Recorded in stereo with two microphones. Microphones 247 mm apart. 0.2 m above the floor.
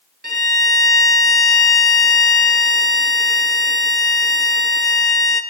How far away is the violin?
About 0.6 m.